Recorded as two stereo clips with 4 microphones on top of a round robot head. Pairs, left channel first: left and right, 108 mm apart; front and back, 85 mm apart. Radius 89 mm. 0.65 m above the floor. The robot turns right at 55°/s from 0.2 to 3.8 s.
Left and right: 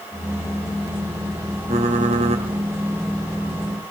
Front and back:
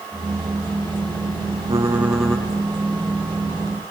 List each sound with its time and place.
1.7 s typing on a keyboard: 120° right, 3 m; by 2.5 s 75° right, 3 m